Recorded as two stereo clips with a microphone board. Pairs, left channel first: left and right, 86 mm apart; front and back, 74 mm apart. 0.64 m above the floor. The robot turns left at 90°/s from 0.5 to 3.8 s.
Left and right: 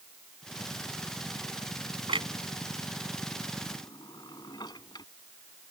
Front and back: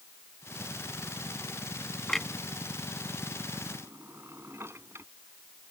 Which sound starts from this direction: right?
A clunk, at 2.1 s.